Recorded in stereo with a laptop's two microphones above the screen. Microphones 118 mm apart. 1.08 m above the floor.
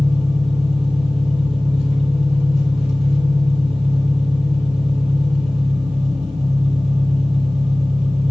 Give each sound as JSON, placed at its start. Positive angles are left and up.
{"t": 0.0, "sound": "an engine running", "side_deg": -60, "distance_m": 4.0}